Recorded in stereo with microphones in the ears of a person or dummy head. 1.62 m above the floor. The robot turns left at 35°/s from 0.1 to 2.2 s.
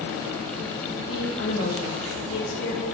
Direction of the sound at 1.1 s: 105° left.